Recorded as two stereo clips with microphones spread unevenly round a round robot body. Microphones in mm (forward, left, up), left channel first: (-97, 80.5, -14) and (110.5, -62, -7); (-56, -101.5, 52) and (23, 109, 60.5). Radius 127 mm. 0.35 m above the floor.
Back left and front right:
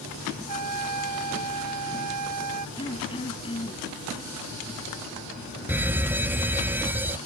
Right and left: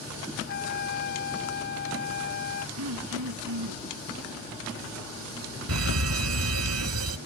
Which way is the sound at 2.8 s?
75° left.